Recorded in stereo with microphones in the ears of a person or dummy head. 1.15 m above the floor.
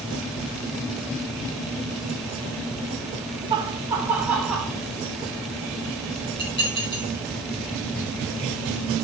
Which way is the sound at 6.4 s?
30° left (ahead or behind).